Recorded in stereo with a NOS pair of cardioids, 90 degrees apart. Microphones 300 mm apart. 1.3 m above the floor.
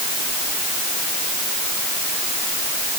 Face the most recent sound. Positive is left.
No sound to turn to.